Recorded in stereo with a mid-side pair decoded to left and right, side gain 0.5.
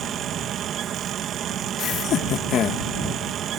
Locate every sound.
0.0 s a fan: 60° right
1.8 s laughter: 60° left